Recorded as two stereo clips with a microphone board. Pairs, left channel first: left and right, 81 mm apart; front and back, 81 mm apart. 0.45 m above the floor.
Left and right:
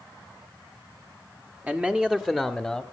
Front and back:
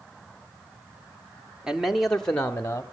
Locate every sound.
1.7 s a man speaking: 115° right, 1.2 m; by 2.8 s 10° left, 1.2 m